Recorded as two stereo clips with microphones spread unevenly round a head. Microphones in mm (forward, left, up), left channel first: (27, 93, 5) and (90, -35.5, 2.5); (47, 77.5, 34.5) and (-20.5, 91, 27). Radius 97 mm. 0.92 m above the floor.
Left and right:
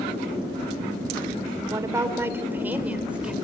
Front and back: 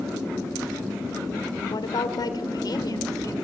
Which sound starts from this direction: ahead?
A woman speaking, at 1.6 s.